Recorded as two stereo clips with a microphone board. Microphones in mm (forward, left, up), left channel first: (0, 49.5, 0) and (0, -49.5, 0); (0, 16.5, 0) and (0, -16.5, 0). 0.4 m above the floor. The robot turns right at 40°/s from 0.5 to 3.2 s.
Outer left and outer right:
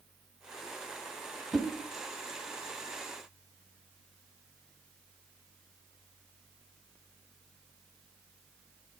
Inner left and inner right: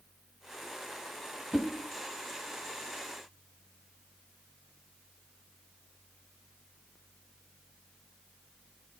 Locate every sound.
1.5 s a whoosh: 5° right (ahead or behind), 1.1 m; by 1.7 s centre (ahead or behind), 1.1 m